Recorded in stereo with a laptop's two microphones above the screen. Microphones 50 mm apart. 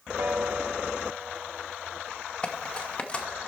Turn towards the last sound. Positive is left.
turn(degrees=25)  # may be behind; listen again after turning